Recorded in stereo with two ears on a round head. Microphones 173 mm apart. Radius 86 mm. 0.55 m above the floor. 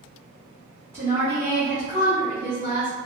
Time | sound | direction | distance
0.9 | a woman speaking | 10° right (ahead or behind) | 1.1 m